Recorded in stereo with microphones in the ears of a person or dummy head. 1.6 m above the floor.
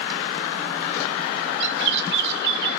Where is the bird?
55° right (ahead or behind), 1.1 m.